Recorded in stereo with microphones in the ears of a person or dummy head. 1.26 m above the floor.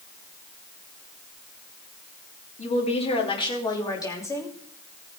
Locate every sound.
2.6 s a woman speaking: 40° left (ahead or behind), 3 m; by 4.5 s 15° left (ahead or behind), 3 m